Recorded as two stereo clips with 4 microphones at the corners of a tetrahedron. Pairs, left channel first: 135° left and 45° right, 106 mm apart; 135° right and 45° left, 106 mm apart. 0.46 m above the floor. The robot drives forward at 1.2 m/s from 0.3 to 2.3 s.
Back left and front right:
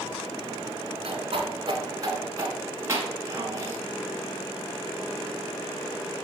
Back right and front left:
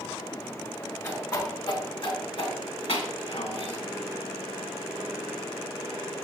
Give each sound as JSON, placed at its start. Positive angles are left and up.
{"t": 1.0, "sound": "a whoosh", "azimuth_deg": -70, "distance_m": 2.5}